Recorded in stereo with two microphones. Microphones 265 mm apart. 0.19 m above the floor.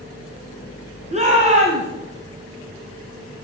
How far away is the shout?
About 1.5 m.